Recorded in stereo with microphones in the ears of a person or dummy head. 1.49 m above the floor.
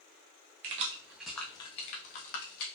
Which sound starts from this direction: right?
Keys jangling, at 0.6 s.